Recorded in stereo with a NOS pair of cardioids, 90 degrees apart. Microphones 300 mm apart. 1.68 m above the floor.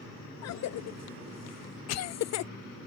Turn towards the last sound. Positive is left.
turn(degrees=60)